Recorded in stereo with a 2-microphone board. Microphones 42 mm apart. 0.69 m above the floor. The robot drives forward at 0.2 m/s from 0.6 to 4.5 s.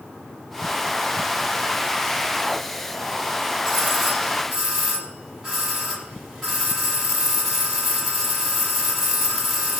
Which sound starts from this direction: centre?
A doorbell, at 3.6 s.